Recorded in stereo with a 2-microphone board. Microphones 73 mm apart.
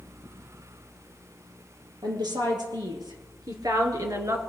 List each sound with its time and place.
2.0 s a woman speaking: 75° right (ahead or behind), 5 m; by 4.4 s 45° right (ahead or behind), 2.5 m